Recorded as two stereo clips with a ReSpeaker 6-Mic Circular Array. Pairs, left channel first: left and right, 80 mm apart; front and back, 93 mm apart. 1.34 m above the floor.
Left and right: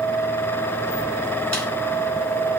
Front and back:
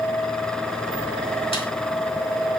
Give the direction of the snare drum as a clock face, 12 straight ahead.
11 o'clock.